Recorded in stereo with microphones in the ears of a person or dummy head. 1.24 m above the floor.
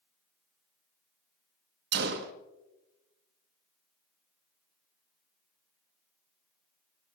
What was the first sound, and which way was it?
A gunshot, 55° right (ahead or behind).